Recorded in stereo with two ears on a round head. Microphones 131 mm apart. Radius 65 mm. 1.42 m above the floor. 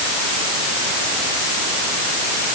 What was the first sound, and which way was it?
Only background noise.